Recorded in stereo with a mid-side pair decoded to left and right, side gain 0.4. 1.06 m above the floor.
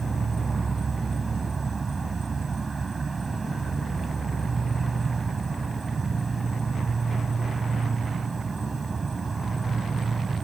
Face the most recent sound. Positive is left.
turn(degrees=-35)